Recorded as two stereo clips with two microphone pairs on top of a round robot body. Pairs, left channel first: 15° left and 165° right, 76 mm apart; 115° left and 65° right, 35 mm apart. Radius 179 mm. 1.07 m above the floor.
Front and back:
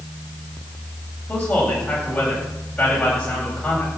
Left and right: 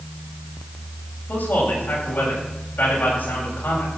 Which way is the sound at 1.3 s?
95° left.